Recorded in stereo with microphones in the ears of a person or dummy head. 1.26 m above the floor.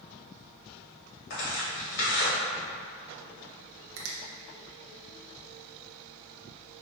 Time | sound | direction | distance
1.3 | tearing paper | 60° left (ahead or behind) | 1.6 m
4.0 | a finger snap | 70° right (ahead or behind) | 0.6 m